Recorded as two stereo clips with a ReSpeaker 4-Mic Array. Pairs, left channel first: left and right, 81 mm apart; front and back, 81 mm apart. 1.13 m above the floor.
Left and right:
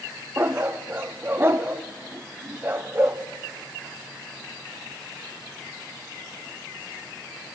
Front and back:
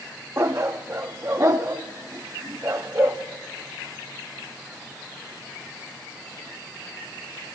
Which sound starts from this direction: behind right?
A dog barking, at 0.4 s.